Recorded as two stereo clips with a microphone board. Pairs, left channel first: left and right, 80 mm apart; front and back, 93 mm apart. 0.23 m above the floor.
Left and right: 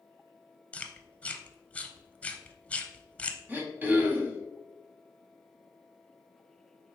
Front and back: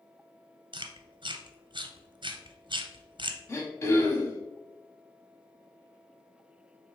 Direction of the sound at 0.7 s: 165° left.